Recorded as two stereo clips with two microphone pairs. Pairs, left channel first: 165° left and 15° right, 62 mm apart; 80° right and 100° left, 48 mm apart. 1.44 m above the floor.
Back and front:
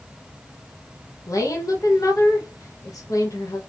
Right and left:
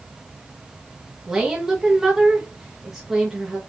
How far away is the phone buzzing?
No phone buzzing in this recording.